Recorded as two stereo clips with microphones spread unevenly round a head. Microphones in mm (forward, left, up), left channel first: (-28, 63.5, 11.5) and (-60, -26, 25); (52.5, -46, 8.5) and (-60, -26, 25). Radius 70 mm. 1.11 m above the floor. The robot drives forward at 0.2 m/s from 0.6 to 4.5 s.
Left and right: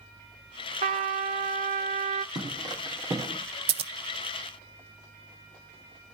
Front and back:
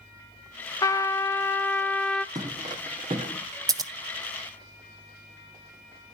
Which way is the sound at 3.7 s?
130° right.